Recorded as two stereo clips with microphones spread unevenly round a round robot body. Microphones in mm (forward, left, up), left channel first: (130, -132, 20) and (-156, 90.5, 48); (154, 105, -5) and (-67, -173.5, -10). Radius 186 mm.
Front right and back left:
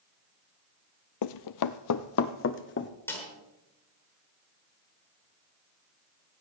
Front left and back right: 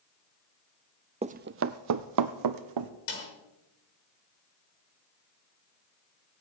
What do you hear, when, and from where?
1.2 s running footsteps: 55° right, 0.5 m; by 2.9 s 100° right, 1.2 m
3.1 s a snare drum: 45° left, 6 m